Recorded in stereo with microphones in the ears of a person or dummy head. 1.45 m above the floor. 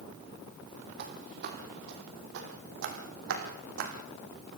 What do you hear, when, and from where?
1.0 s footsteps: 55° right (ahead or behind), 3 m; by 3.9 s 70° right (ahead or behind), 4 m